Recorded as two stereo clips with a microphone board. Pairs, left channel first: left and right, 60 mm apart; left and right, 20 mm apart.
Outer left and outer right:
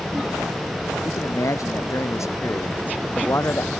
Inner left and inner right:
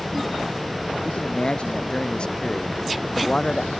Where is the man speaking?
65° left (ahead or behind); by 3.8 s 45° left (ahead or behind).